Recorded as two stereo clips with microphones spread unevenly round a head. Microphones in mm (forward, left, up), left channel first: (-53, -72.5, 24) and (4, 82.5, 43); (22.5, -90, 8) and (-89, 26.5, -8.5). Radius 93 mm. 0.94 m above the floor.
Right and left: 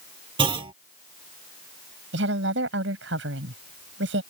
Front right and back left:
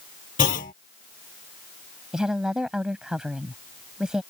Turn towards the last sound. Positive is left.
turn(degrees=45)